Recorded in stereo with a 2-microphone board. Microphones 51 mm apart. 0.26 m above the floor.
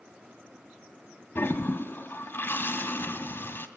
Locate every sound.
1.4 s a toilet flushing: 50° left (ahead or behind), 1.4 m